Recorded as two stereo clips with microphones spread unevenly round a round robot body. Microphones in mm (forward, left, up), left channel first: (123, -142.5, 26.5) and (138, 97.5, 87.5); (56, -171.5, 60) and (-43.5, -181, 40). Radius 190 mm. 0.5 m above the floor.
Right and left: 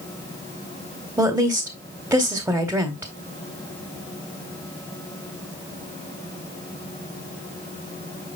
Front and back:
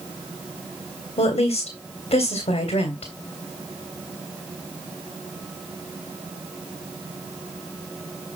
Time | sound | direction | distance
1.2 | a woman speaking | straight ahead | 2.0 m